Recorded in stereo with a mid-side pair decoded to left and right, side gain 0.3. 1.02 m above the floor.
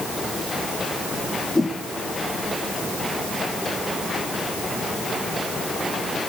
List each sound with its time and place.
1.6 s a whoosh: 25° left, 3.5 m